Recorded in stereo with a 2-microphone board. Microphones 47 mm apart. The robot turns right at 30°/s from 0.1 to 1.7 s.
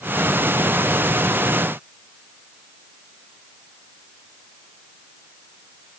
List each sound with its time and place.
Only background noise.